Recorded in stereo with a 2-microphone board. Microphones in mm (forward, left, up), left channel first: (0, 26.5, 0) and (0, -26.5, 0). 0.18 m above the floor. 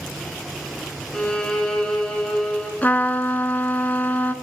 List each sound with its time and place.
1.1 s a violin: 15° left (ahead or behind), 1.9 m
2.8 s a trumpet: 35° left (ahead or behind), 0.8 m